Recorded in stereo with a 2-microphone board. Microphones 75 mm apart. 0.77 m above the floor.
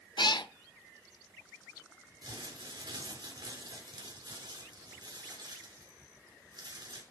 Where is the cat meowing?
80° left, 0.7 m.